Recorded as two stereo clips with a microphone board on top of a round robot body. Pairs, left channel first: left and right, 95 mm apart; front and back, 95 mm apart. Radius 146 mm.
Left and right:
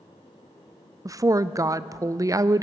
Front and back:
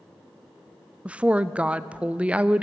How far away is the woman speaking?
About 0.5 m.